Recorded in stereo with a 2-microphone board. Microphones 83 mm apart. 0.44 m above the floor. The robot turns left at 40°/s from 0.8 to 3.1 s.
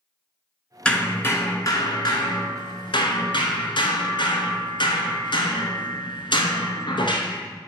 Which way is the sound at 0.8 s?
170° left.